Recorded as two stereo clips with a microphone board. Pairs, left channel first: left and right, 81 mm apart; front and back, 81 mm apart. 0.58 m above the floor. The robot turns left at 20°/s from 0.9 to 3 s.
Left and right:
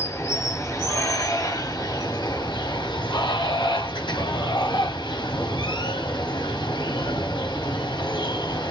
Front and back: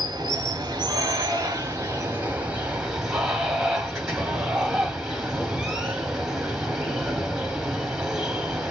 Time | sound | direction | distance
0.0 | running water | 145° left | 1.2 m